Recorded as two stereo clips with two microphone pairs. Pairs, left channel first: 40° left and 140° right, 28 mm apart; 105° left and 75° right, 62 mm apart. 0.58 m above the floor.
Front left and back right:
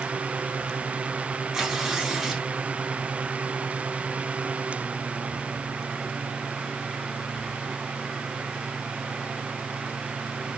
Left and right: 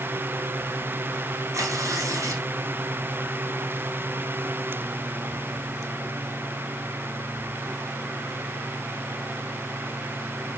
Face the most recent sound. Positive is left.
turn(degrees=-65)